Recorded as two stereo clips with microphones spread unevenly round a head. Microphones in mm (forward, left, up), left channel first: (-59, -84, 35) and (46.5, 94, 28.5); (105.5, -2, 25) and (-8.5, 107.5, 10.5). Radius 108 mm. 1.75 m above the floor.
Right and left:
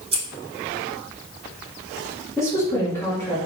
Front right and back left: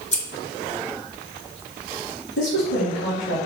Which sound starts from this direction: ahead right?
A woman speaking, at 2.4 s.